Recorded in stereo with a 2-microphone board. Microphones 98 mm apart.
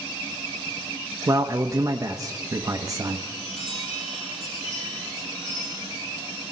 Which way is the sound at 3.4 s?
90° left.